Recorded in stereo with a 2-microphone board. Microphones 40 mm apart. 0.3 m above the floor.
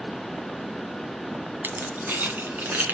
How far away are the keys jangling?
About 1.6 m.